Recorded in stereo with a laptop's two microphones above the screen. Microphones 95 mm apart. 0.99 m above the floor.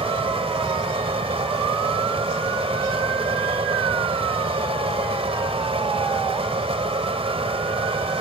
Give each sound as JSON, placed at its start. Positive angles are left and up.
{"t": 0.0, "sound": "a fan", "side_deg": -80}